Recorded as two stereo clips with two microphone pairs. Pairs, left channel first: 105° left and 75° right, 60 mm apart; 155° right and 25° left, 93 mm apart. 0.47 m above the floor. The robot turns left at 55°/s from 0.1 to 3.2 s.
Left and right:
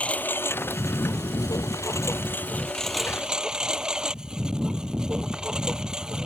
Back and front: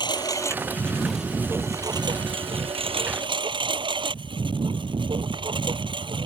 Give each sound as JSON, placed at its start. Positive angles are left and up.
{"t": 0.0, "sound": "a lawn mower", "azimuth_deg": 170}